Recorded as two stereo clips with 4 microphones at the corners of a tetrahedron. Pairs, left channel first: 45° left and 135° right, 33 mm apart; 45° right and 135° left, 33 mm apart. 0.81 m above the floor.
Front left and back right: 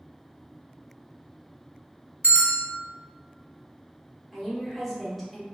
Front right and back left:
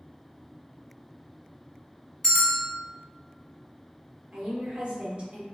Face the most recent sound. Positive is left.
turn(degrees=140)